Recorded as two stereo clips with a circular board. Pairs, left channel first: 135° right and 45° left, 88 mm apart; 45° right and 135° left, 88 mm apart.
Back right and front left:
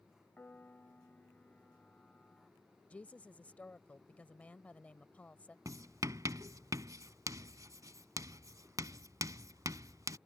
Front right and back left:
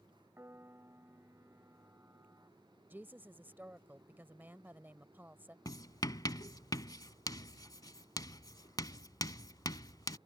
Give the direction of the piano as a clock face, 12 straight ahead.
6 o'clock.